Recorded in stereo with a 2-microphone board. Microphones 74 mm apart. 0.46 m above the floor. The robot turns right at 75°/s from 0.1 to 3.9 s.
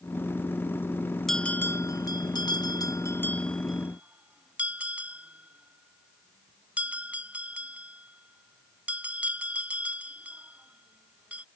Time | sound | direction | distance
1.3 | a bell | 5° left (ahead or behind) | ?